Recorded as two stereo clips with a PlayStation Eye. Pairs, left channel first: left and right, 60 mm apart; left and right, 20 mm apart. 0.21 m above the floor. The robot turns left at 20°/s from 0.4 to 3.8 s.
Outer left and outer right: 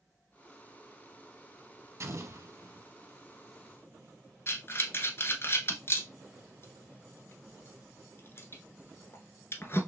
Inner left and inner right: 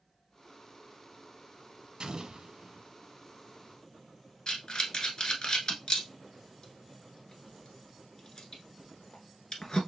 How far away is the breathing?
About 1.2 m.